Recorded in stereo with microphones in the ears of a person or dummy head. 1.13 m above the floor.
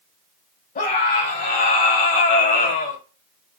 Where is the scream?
45° left (ahead or behind), 3.5 m.